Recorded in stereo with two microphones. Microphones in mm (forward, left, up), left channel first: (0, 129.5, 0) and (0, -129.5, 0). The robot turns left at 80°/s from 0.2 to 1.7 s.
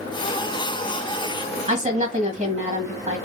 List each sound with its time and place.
1.7 s a woman speaking: 30° right (ahead or behind), 1.4 m